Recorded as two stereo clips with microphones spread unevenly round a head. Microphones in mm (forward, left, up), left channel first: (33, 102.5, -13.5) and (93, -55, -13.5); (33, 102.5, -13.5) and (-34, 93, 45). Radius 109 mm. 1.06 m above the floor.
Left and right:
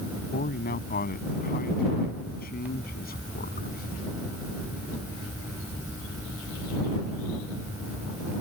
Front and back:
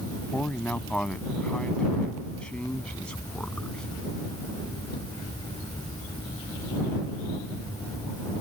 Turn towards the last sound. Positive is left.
turn(degrees=85)